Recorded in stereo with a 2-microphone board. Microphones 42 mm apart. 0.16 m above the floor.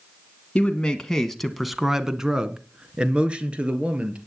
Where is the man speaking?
20° left (ahead or behind), 1.4 m; by 4.2 s 30° right (ahead or behind), 3 m.